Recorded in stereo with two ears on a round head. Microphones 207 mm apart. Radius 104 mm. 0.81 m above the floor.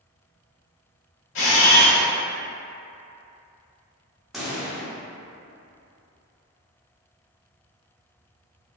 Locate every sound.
1.4 s a camera shutter: 60° left (ahead or behind), 1.2 m
4.3 s a pop: centre (ahead or behind), 1.0 m